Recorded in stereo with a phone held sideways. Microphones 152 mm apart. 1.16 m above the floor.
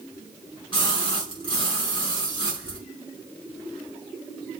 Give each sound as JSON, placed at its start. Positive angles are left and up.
{"t": 0.7, "sound": "a splash", "side_deg": 30, "distance_m": 5.5}